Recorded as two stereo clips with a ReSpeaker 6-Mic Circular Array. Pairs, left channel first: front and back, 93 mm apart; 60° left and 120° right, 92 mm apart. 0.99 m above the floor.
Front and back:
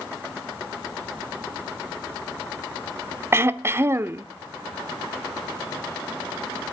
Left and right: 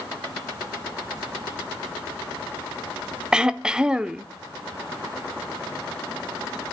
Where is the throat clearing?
170° left, 0.6 m.